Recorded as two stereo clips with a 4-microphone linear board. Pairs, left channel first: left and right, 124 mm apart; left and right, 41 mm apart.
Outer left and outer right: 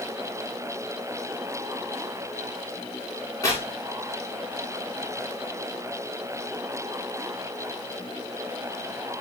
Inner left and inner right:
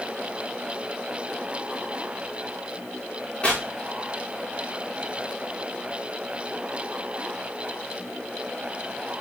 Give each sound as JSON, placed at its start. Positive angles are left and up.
{"t": 3.4, "sound": "tearing paper", "side_deg": 25, "distance_m": 7.0}